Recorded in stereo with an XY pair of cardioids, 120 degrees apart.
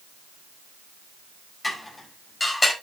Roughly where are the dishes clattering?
Ahead.